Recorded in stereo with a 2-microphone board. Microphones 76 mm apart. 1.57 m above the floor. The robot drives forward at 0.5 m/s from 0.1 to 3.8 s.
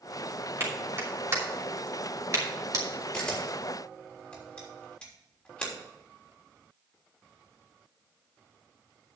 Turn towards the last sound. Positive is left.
turn(degrees=15)  # may be behind; listen again after turning